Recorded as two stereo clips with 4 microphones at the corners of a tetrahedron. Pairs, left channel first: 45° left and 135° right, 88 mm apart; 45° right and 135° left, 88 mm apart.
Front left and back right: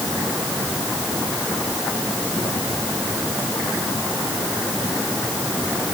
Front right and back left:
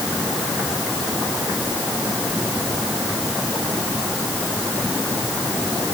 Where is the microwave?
I don't hear a microwave.